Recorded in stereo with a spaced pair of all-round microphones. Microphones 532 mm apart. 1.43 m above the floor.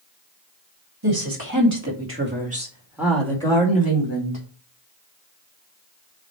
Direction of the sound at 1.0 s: 45° right (ahead or behind).